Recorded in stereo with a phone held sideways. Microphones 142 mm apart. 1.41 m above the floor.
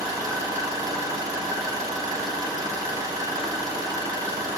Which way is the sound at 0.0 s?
25° right (ahead or behind).